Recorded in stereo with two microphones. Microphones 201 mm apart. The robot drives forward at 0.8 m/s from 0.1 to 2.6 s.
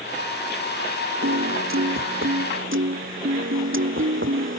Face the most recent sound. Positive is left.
turn(degrees=-75)  # may be behind; listen again after turning